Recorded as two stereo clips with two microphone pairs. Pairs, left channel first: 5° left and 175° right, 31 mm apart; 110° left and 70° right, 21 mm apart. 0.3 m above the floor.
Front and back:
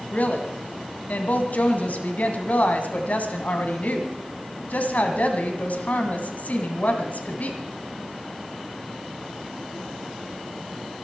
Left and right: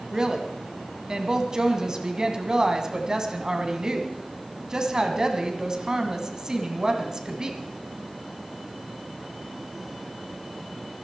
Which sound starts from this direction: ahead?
A woman speaking, at 0.1 s.